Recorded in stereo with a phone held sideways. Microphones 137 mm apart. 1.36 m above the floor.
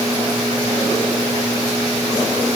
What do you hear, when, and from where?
Only background noise.